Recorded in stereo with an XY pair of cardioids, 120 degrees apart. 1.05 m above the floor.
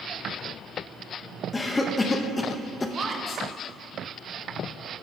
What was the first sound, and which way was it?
A cough, 20° left.